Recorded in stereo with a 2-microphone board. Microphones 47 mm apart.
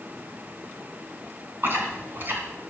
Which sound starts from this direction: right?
Chewing, at 1.6 s.